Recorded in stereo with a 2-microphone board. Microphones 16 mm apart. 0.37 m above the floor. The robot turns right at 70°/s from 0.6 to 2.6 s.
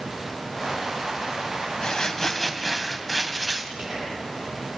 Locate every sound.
1.8 s crumpling: 130° left, 1.8 m; by 3.7 s 175° right, 1.8 m
3.8 s whispering: 40° right (ahead or behind), 9.5 m